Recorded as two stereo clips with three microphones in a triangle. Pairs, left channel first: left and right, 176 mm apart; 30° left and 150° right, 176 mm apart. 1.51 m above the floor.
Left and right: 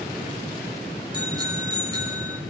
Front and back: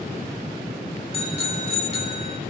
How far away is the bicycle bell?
About 3.5 m.